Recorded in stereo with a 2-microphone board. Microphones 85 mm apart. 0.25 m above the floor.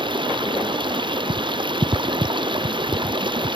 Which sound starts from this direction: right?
Running water, at 0.0 s.